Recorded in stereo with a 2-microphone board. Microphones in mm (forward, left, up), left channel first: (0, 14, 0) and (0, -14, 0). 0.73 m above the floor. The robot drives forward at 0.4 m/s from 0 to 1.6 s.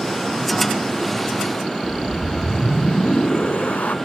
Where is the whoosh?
85° left.